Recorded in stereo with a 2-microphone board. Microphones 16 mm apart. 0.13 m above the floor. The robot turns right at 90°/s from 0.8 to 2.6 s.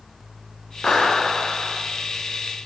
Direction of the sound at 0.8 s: 75° left.